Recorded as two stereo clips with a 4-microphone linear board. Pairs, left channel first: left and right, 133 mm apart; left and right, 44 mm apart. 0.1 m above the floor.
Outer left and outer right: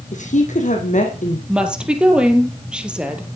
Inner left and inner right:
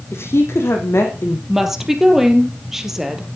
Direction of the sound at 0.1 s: 65° left (ahead or behind).